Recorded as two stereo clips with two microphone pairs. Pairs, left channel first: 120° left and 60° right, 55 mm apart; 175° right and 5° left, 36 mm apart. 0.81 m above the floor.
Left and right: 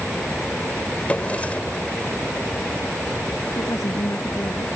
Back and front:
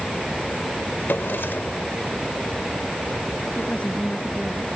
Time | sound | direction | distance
1.1 | a drawer | 175° right | ?
3.5 | a woman speaking | 125° left | ?